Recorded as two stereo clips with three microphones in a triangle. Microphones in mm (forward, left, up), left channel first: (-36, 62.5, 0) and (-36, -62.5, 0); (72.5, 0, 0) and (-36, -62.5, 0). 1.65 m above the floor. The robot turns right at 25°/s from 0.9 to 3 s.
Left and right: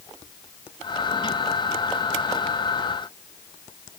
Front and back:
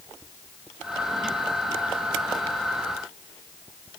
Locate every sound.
Only background noise.